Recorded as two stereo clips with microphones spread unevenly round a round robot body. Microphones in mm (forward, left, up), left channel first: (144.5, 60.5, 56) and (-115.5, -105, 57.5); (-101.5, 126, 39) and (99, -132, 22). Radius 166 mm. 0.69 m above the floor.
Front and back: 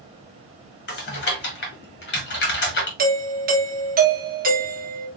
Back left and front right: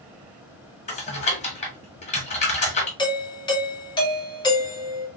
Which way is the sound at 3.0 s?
165° right.